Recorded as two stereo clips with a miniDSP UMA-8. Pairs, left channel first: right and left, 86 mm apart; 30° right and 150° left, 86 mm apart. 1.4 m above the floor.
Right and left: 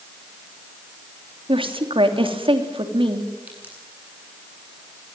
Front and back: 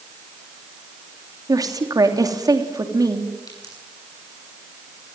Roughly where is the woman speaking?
Left.